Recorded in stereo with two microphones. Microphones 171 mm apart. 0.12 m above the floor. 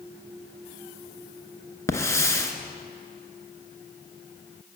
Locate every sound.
1.9 s a hiss: 15° left (ahead or behind), 0.8 m